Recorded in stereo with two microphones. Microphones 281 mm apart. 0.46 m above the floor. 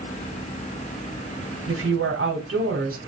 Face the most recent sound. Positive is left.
turn(degrees=-50)  # may be behind; listen again after turning